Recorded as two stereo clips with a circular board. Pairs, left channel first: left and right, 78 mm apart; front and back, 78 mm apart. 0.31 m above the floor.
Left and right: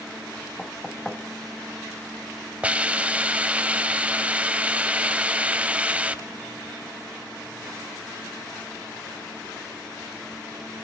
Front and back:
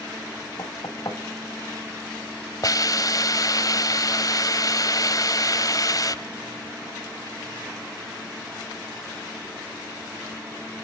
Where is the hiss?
20° right, 0.9 m.